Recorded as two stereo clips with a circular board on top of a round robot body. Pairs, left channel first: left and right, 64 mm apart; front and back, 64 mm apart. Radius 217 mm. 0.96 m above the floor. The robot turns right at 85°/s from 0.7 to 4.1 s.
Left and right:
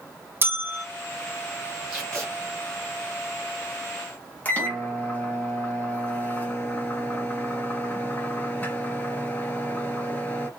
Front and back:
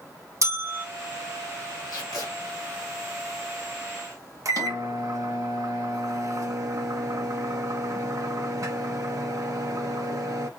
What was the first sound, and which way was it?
A bell, 145° right.